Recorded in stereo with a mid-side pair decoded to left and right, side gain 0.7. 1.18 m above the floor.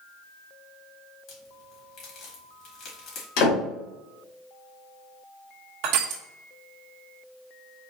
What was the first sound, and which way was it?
A crack, 50° left.